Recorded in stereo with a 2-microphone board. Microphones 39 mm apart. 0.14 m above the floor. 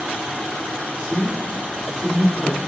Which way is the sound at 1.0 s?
10° right (ahead or behind).